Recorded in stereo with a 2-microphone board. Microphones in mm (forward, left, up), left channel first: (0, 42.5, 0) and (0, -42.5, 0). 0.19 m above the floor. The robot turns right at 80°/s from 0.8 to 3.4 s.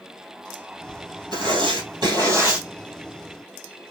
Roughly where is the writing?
Behind right.